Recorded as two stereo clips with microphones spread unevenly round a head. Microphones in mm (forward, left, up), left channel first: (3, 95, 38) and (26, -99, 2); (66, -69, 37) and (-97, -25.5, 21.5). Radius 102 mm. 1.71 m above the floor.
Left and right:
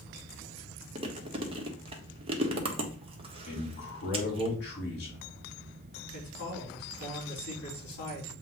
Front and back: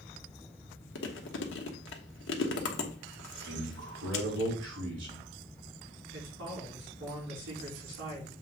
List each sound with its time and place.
0.9 s chewing: 20° right, 1.2 m
3.5 s a man speaking: 140° left, 4 m
6.1 s a man speaking: 135° left, 4.5 m